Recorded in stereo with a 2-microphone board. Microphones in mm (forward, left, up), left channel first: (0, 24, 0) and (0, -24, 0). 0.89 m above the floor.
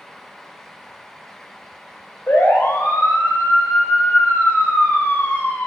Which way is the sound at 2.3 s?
65° left (ahead or behind).